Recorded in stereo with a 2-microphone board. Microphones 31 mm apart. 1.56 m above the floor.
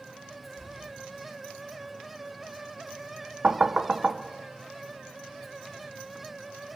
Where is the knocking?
30° right (ahead or behind), 0.8 m.